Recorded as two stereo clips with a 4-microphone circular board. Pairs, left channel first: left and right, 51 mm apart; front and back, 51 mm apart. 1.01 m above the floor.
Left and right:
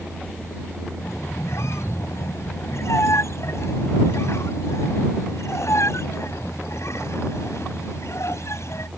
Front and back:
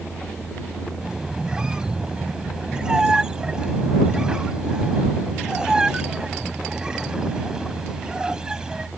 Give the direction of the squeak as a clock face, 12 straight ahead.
9 o'clock.